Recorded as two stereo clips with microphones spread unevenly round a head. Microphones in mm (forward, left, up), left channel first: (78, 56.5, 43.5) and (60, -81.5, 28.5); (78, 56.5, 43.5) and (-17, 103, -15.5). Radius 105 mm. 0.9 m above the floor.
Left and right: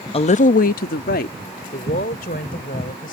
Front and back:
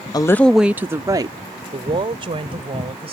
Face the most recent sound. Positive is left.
turn(degrees=125)